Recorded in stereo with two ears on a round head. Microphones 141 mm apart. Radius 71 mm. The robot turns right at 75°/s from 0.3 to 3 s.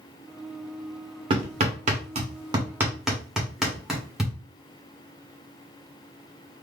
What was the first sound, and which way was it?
Hammering, 35° right (ahead or behind).